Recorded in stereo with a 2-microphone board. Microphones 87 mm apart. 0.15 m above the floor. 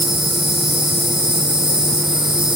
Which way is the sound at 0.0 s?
75° right (ahead or behind).